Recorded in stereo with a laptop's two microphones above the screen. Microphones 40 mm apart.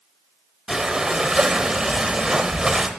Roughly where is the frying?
No frying in this recording.